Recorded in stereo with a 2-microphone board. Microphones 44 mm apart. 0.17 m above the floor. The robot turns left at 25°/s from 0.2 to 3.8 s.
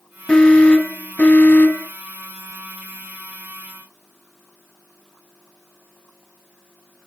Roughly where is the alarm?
Behind.